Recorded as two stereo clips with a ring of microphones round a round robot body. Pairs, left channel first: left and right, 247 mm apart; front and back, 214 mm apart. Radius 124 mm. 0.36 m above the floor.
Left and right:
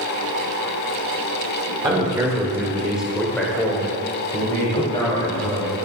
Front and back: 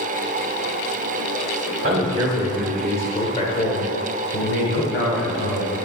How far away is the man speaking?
About 1.4 m.